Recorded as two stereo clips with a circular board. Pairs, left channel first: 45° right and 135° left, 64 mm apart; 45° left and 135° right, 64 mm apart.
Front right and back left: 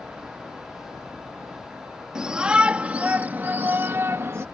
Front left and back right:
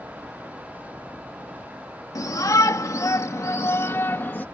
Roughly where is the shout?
Ahead left.